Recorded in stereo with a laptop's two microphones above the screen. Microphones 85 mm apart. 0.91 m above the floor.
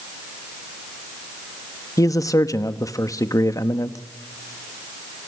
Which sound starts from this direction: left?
A man speaking, at 2.0 s.